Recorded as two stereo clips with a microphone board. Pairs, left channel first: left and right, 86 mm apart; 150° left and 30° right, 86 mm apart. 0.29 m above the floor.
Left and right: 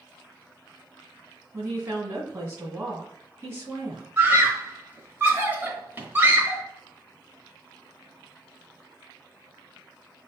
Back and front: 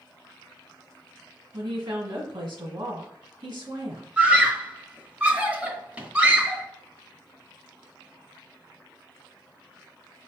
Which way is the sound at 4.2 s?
75° right.